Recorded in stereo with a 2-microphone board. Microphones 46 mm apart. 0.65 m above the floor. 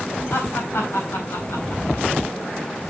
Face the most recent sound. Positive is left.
turn(degrees=75)  # may be behind; listen again after turning